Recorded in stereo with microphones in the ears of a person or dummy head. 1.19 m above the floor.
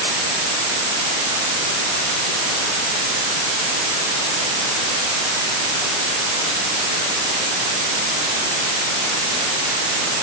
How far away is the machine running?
No machine running in this recording.